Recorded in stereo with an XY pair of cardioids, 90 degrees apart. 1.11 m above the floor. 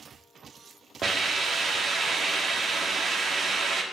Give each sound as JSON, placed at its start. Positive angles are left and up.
{"t": 1.0, "sound": "a hiss", "azimuth_deg": -50, "distance_m": 1.2}